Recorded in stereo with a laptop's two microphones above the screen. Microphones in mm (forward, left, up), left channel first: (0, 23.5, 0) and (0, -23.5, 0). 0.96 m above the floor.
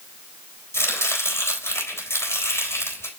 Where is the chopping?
70° left (ahead or behind), 3.5 m.